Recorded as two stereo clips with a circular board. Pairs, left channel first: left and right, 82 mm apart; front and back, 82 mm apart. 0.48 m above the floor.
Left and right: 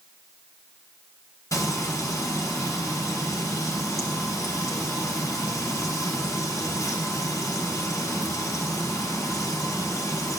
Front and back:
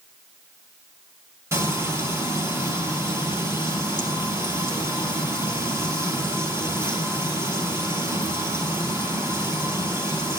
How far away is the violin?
I don't hear a violin.